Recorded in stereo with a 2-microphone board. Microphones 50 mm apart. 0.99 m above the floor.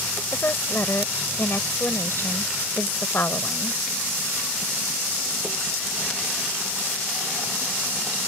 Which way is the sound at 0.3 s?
55° left (ahead or behind).